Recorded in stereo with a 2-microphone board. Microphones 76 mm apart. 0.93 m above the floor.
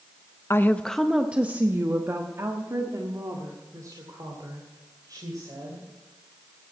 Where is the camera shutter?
No camera shutter in this recording.